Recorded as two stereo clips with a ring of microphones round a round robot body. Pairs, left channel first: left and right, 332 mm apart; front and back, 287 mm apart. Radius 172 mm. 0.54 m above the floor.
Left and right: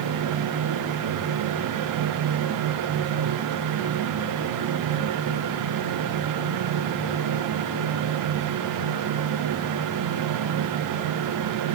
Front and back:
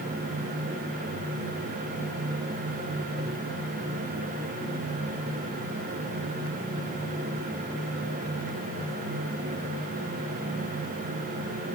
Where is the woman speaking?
I don't hear a woman speaking.